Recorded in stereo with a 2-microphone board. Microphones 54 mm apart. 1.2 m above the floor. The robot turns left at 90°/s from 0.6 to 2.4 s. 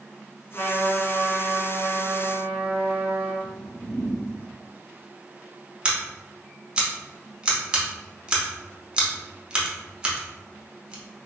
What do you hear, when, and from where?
0.5 s a trumpet: 50° left, 1.2 m; by 3.3 s 115° right, 1.2 m
3.4 s a whoosh: 65° left (ahead or behind), 0.7 m
5.8 s scissors: 15° right (ahead or behind), 0.7 m